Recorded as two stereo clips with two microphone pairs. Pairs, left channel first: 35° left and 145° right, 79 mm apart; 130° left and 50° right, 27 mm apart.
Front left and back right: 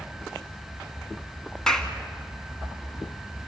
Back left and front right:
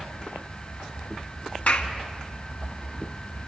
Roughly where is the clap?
Behind left.